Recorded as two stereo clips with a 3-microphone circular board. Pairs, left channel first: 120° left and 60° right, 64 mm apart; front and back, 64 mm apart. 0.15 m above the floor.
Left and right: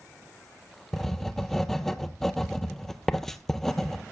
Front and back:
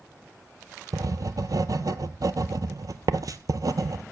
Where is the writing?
155° right, 0.6 m.